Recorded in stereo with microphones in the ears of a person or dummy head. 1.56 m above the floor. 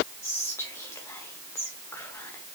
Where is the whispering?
15° left (ahead or behind), 0.9 m.